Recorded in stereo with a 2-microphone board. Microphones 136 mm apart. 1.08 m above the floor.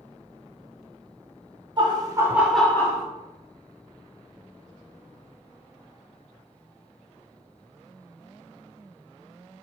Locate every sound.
1.8 s laughter: 35° right (ahead or behind), 0.8 m; by 3.0 s 30° left (ahead or behind), 0.6 m